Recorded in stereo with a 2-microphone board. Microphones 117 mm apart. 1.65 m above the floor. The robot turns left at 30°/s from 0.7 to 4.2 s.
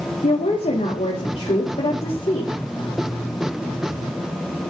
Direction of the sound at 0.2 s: 95° left.